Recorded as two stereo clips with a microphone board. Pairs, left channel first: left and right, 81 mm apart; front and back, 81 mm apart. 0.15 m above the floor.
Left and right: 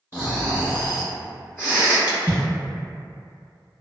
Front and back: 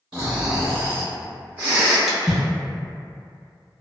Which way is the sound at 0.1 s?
125° left.